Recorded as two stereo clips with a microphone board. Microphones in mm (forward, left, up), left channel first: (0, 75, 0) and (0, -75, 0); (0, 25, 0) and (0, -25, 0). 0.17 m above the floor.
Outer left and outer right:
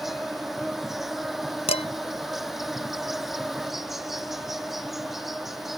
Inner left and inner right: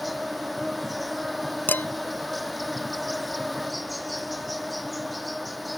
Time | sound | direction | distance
0.0 | an insect | centre (ahead or behind) | ?
1.7 | dishes clattering | 45° left (ahead or behind) | ?